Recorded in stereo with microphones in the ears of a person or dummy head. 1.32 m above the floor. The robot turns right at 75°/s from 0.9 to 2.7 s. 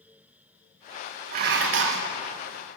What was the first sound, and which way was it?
Dishes clattering, 135° right.